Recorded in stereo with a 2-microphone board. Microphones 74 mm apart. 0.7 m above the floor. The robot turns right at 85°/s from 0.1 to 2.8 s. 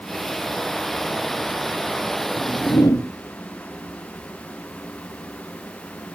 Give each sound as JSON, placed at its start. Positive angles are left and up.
{"t": 2.4, "sound": "a whoosh", "side_deg": 90, "distance_m": 1.9}